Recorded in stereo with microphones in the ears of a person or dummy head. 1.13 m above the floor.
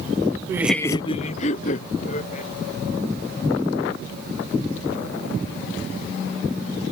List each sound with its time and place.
0.5 s laughter: 20° right (ahead or behind); by 2.5 s 40° left (ahead or behind)